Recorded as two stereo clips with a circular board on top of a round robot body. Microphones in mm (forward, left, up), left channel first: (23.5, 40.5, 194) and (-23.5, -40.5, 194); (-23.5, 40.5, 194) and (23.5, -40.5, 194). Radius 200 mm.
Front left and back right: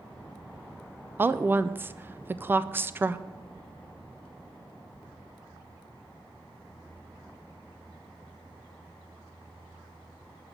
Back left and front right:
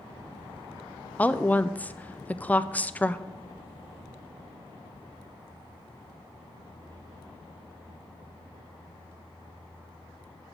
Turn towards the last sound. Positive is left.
turn(degrees=-175)